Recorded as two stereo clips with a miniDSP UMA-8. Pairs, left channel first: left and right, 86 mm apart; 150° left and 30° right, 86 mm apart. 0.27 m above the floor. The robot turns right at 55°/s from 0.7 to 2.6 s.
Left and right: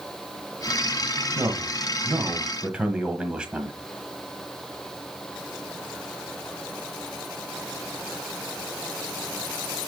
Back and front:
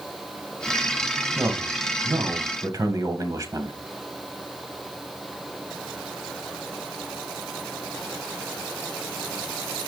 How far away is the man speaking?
About 1.4 m.